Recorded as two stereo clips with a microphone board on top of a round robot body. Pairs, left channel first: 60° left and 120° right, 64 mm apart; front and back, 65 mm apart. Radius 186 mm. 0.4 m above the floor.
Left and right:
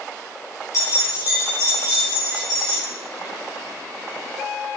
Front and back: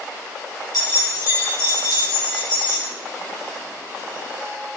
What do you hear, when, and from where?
0.7 s keys jangling: 20° left, 4.5 m; by 2.8 s 35° left, 5 m